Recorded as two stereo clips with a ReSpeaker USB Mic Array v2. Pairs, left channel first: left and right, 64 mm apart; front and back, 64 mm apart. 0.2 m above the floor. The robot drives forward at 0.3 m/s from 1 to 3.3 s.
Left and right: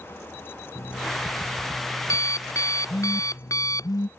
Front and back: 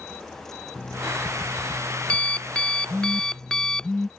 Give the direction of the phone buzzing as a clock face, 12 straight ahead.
9 o'clock.